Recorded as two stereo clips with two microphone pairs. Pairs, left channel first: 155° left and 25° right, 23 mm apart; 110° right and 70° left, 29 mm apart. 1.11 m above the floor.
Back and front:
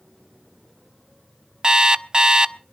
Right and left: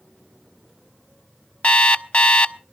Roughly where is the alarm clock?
Right.